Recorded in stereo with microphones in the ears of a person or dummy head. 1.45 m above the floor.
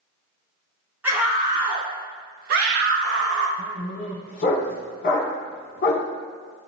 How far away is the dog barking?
About 1.5 m.